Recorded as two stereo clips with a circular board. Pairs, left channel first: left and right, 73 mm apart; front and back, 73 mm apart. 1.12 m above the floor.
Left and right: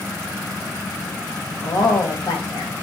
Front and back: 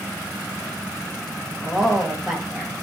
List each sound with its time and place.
1.6 s a woman speaking: 95° left, 1.7 m